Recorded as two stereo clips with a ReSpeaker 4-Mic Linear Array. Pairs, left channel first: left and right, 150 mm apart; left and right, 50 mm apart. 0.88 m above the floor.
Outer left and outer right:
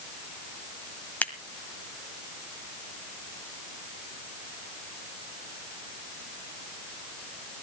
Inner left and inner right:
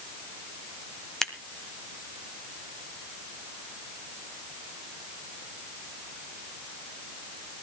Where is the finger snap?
I don't hear a finger snap.